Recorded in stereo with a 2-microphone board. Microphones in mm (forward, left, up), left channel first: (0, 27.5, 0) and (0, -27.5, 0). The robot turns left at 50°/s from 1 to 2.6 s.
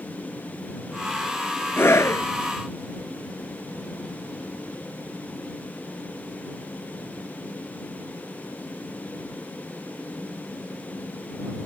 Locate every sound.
1.8 s a scream: 45° left (ahead or behind); by 2.3 s 65° left (ahead or behind)